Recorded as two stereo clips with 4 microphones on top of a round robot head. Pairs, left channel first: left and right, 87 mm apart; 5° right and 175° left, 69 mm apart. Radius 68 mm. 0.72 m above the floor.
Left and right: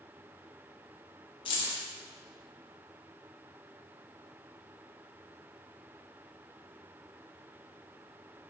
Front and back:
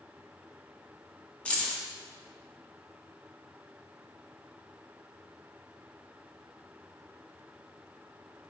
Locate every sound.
1.4 s keys jangling: 70° left, 0.8 m